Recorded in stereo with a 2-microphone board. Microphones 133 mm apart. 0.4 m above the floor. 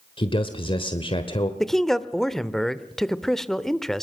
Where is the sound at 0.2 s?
45° left (ahead or behind), 1.3 m.